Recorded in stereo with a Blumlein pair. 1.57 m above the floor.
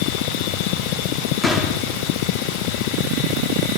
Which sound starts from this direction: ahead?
A gunshot, at 1.4 s.